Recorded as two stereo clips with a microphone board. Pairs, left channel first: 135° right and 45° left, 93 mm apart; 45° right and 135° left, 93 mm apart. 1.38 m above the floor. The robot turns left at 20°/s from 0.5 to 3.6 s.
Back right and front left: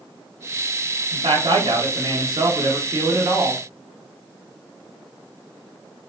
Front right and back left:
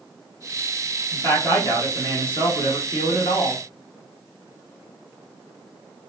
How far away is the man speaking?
About 1.2 m.